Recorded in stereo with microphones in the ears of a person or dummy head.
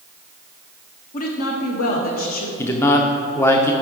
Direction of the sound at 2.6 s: 15° left (ahead or behind).